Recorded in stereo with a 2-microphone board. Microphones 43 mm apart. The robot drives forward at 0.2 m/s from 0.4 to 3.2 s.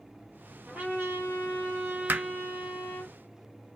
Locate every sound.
0.7 s a trumpet: 45° right (ahead or behind), 2 m; by 3.1 s 35° right (ahead or behind), 2.5 m
2.1 s hammering: 45° right (ahead or behind), 0.5 m